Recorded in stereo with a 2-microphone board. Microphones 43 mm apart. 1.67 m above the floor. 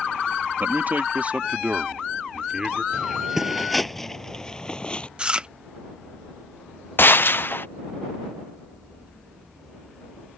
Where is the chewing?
25° right (ahead or behind).